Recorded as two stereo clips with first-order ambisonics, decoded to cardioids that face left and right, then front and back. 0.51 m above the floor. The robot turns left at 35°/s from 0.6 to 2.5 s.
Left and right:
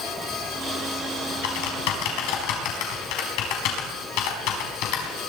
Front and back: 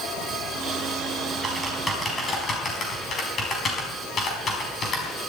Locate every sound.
1.4 s typing on a keyboard: 105° left, 4 m; by 5.2 s 65° left, 4 m